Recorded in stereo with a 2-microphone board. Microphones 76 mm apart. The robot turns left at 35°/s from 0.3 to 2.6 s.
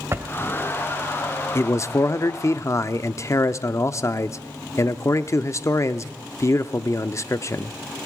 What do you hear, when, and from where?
0.1 s a drawer: 35° right (ahead or behind), 1.7 m
1.6 s a man speaking: 115° left, 0.7 m; by 7.8 s 80° left, 0.7 m